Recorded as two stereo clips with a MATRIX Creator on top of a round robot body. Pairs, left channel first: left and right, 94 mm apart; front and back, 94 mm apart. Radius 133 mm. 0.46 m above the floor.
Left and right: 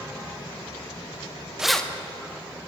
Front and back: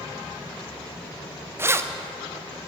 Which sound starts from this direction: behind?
Keys jangling, at 1.6 s.